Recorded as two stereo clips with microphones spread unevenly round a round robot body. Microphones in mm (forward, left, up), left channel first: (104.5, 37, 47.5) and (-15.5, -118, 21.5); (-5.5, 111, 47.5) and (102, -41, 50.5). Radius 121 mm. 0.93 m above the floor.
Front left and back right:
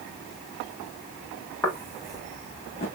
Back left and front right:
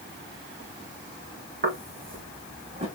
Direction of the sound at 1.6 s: 25° right.